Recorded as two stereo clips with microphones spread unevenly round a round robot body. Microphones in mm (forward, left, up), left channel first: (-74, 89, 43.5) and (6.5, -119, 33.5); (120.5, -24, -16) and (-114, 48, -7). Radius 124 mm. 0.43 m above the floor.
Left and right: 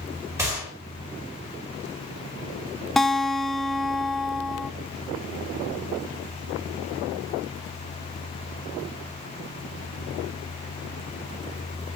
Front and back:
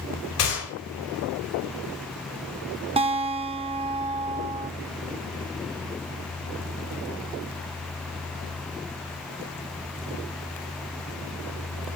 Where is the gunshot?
10° left, 5 m.